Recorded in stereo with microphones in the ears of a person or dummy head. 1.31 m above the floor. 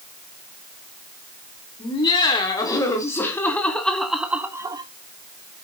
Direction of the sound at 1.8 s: 25° left (ahead or behind).